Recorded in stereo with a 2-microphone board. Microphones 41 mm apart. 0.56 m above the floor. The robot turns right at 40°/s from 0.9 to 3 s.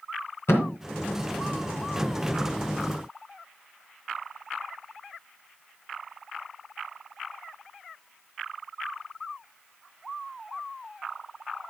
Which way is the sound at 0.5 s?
80° left.